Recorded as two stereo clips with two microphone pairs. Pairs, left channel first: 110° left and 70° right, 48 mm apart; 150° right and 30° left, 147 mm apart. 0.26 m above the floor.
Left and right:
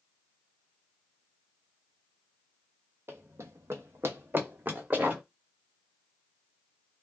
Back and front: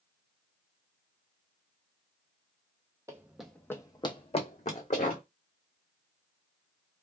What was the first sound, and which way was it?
Running footsteps, 40° right.